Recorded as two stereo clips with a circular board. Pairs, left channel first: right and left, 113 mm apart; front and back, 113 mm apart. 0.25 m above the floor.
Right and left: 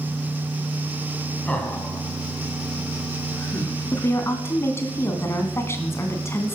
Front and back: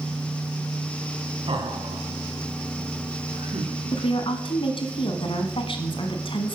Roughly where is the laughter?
Behind.